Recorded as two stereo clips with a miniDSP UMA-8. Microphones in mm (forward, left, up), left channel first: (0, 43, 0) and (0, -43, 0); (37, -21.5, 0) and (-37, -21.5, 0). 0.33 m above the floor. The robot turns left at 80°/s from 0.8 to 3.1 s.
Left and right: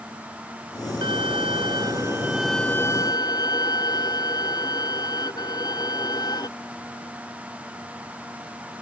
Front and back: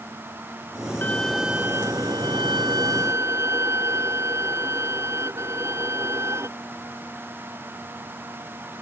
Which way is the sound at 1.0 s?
65° right.